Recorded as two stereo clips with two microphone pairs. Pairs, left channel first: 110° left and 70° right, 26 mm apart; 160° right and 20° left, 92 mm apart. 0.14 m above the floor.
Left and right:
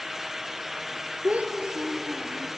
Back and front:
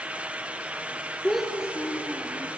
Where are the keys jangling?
No keys jangling in this recording.